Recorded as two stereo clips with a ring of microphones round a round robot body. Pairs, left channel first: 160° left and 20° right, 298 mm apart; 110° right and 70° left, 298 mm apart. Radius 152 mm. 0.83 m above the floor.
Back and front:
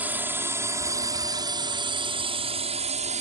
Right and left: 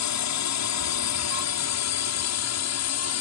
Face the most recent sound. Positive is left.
turn(degrees=-85)